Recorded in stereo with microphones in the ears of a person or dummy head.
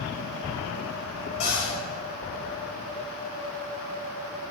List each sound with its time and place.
1.4 s a cupboard door: 30° left (ahead or behind), 2 m